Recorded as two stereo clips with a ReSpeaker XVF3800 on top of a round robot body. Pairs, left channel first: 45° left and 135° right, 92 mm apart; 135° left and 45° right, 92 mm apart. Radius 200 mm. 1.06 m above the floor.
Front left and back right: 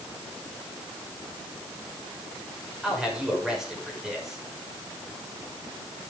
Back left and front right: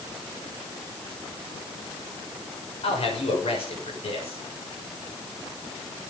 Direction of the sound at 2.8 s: 140° left.